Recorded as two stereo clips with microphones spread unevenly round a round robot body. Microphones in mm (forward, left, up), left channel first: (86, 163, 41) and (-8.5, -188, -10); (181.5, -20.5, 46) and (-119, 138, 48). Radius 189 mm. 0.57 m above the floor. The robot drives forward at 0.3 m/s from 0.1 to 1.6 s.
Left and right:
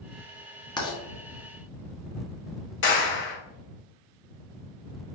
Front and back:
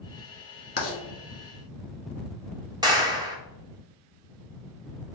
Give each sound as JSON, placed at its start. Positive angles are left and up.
{"t": 0.8, "sound": "writing", "azimuth_deg": -5, "distance_m": 1.2}
{"t": 2.8, "sound": "a clap", "azimuth_deg": 90, "distance_m": 0.8}